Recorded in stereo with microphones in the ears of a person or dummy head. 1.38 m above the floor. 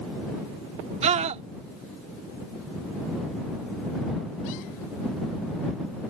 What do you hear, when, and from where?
1.0 s a scream: 40° right (ahead or behind)